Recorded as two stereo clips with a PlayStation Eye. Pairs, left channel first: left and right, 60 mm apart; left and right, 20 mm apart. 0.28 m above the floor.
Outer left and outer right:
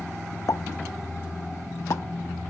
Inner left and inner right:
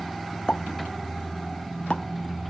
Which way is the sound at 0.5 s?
60° left (ahead or behind).